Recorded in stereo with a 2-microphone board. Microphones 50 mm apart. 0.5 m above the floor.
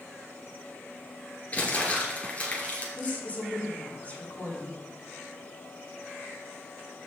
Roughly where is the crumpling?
Left.